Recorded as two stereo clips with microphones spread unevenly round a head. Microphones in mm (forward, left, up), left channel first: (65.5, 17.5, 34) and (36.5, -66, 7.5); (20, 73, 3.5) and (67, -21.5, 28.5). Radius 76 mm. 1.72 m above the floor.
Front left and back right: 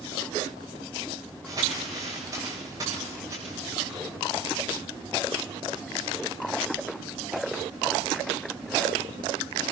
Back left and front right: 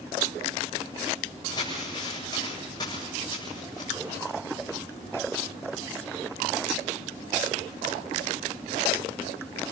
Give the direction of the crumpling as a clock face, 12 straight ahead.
6 o'clock.